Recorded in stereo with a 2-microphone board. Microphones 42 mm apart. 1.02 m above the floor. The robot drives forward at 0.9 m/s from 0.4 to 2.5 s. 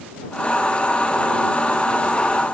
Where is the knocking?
I don't hear knocking.